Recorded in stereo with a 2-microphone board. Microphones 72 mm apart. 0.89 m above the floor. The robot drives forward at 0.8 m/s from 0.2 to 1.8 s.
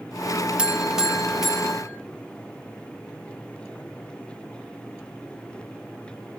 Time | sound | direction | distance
0.6 | a buzzer | 15° right (ahead or behind) | 0.6 m